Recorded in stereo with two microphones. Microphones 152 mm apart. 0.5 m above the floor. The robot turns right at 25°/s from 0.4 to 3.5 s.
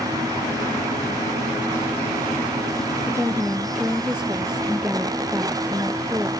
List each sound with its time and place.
3.1 s a woman speaking: 15° right (ahead or behind); by 6.3 s 5° right (ahead or behind)